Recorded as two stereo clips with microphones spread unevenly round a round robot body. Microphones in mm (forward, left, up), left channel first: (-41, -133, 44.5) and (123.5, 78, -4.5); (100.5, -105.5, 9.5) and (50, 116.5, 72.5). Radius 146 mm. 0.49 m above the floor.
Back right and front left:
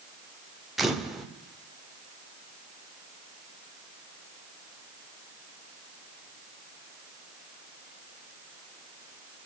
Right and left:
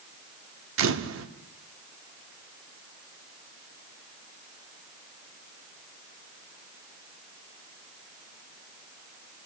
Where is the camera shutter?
130° left, 1.1 m.